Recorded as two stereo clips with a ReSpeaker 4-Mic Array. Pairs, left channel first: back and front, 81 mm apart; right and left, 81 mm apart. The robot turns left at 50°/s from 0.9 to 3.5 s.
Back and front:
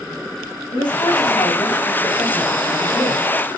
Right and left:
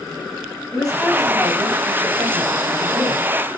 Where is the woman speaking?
Straight behind, 3.5 m; by 3.3 s 60° left, 3.5 m.